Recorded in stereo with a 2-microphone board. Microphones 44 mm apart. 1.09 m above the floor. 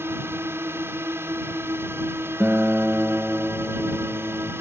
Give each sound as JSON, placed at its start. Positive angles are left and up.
{"t": 0.0, "sound": "a drone", "side_deg": -65}
{"t": 2.4, "sound": "a guitar", "side_deg": -40}